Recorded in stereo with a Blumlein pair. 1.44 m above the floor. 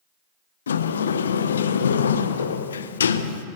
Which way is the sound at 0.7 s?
65° left.